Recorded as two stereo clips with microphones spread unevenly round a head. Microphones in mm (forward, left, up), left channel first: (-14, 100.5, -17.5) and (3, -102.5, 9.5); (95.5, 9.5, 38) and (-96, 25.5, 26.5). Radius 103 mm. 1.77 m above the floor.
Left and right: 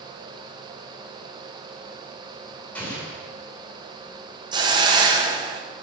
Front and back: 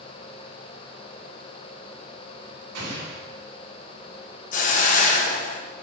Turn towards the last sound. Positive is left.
turn(degrees=-35)